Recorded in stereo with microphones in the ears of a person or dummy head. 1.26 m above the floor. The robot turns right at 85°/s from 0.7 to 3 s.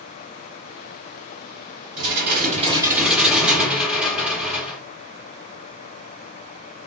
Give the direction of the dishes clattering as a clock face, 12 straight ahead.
3 o'clock.